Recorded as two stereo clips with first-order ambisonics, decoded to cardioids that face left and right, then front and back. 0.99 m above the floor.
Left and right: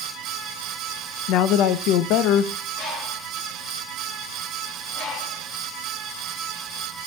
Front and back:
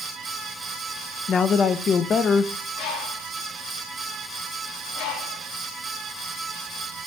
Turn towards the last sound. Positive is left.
turn(degrees=35)